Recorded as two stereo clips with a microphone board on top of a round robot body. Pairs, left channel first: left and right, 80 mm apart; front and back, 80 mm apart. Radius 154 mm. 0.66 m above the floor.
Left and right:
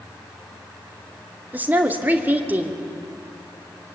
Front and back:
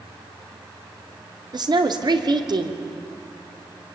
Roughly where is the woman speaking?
Behind.